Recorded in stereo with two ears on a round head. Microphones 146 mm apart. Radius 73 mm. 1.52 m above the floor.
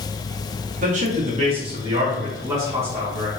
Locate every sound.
0.8 s a man speaking: 50° right (ahead or behind), 1.3 m; by 3.3 s 10° right (ahead or behind), 2 m